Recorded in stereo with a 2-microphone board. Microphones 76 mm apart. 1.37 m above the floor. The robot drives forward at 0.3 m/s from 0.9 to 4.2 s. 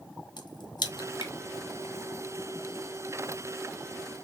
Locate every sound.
0.4 s a crack: 75° left (ahead or behind), 0.8 m; by 1.3 s 85° left, 0.8 m